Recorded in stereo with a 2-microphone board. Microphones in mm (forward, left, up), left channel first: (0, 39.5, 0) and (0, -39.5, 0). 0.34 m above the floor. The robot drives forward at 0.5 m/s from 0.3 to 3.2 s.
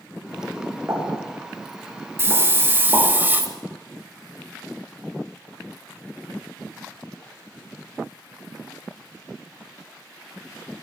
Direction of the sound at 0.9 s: 40° right (ahead or behind).